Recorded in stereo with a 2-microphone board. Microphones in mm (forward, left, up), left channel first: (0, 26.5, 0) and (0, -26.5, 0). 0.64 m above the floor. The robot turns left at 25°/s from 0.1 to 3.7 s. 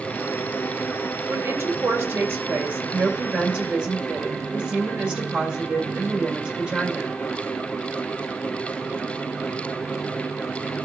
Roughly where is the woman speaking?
Right.